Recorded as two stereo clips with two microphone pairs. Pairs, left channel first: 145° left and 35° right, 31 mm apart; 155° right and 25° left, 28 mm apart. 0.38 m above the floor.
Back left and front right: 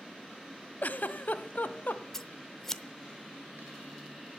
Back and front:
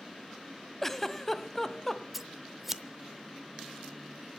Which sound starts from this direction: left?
Scissors, at 2.1 s.